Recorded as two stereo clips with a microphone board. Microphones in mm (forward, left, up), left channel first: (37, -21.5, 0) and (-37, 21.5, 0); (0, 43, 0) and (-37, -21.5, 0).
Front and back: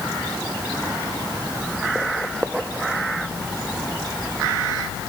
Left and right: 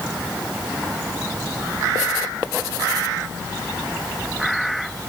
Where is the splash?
No splash in this recording.